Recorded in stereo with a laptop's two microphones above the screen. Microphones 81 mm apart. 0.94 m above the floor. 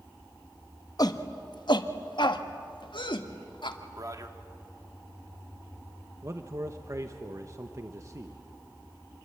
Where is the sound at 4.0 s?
45° right (ahead or behind), 2 m.